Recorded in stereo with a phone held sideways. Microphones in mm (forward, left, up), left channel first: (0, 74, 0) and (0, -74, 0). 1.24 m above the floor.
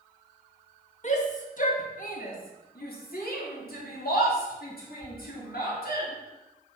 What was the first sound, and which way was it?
A shout, 50° left (ahead or behind).